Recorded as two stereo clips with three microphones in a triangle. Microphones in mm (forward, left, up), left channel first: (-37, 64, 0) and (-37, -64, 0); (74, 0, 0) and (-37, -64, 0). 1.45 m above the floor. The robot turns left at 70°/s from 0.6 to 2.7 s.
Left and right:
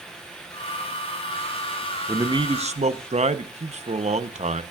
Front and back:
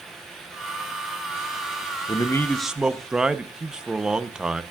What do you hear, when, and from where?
2.1 s a man speaking: 25° right, 0.9 m; by 4.6 s 65° right, 0.9 m